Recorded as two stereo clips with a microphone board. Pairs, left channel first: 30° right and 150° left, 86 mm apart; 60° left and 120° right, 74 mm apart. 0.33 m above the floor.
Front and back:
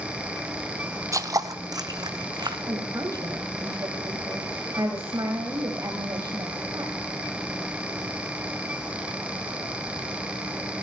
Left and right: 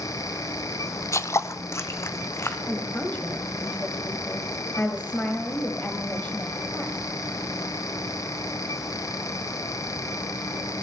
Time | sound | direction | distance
1.1 | footsteps | 105° left | 0.6 m
2.7 | a woman speaking | 120° left | 2 m